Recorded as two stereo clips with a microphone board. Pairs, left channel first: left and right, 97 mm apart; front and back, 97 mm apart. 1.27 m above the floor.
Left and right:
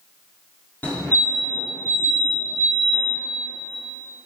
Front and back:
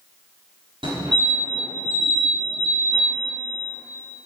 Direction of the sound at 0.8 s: 160° left.